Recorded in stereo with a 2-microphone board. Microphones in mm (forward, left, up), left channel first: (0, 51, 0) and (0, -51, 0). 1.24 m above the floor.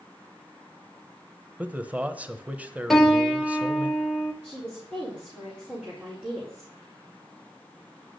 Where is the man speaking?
15° right (ahead or behind), 1.0 m.